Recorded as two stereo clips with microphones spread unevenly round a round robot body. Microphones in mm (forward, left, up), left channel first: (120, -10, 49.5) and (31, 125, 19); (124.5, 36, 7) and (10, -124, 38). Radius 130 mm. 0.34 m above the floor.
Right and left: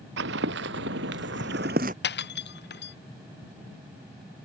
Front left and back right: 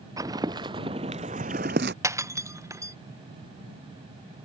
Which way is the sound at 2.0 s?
50° right.